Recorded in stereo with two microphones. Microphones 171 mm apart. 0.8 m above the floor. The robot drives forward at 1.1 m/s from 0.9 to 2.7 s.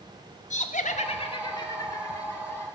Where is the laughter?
45° left (ahead or behind), 0.7 m; by 2.6 s 10° left (ahead or behind), 2.5 m.